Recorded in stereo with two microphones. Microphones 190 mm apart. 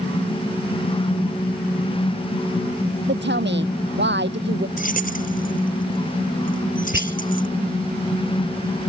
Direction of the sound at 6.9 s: 75° right (ahead or behind).